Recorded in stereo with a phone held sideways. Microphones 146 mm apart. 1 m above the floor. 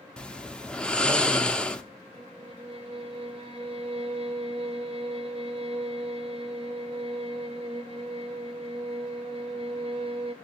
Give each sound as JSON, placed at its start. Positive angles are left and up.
{"t": 0.2, "sound": "snoring", "side_deg": 5, "distance_m": 0.6}
{"t": 2.1, "sound": "a violin", "side_deg": -45, "distance_m": 1.3}